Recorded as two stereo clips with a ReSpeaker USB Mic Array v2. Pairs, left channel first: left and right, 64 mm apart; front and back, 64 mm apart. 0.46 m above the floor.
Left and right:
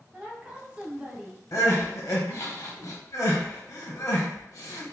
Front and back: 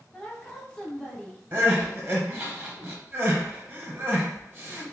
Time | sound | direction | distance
0.1 | a woman speaking | 45° right | 0.7 m
1.5 | crying | 120° left | 0.9 m